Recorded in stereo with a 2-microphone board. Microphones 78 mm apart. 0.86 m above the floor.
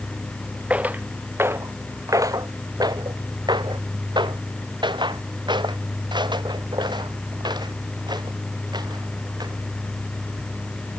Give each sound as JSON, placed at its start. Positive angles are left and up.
{"t": 0.7, "sound": "footsteps", "side_deg": -20}